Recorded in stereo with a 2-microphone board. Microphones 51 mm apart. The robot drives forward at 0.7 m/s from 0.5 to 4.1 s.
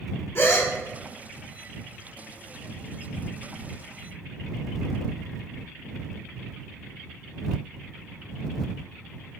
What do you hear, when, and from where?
0.3 s a gasp: 45° left (ahead or behind), 0.8 m; by 0.7 s 50° left (ahead or behind), 0.7 m